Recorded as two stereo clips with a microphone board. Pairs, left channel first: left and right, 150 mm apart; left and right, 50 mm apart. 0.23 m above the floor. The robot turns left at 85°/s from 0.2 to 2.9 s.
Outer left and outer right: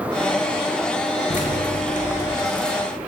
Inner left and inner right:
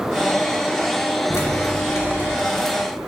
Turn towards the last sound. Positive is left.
turn(degrees=-15)  # may be behind; listen again after turning